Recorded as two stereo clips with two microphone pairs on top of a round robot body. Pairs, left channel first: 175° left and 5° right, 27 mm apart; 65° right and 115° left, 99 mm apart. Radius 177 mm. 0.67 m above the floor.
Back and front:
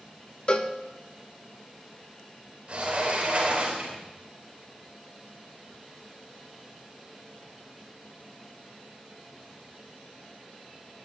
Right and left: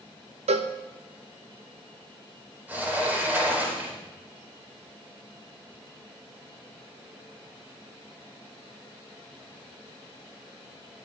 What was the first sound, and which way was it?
A cowbell, 125° left.